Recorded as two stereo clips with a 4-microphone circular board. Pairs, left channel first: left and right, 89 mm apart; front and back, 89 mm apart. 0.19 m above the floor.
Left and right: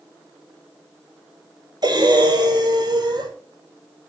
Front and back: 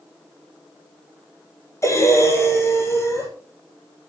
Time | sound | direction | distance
1.8 | breathing | 55° right | 6 m